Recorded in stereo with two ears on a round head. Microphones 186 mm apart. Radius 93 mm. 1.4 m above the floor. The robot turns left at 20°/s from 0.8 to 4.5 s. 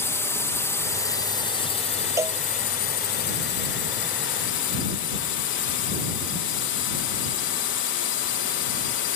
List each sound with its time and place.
0.0 s a drone: 165° left; by 9.2 s 90° left
2.2 s a cowbell: 15° right (ahead or behind); by 2.4 s 10° right (ahead or behind)